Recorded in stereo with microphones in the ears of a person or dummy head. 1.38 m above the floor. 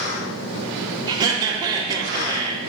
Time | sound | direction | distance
1.1 | laughter | 30° right (ahead or behind) | 1.9 m